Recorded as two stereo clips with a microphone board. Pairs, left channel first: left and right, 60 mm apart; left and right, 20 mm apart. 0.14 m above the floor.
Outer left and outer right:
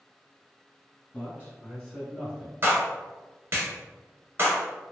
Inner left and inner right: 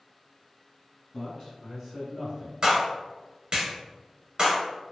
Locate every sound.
1.1 s a man speaking: 35° left (ahead or behind), 1.9 m; by 2.5 s 20° right (ahead or behind), 1.5 m
2.6 s a clap: 35° right (ahead or behind), 1.2 m